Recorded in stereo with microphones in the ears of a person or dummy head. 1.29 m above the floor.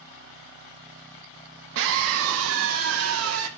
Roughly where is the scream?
Right.